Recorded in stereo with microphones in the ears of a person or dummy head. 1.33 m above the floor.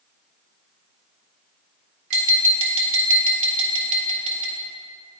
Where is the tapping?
40° right (ahead or behind), 1.5 m.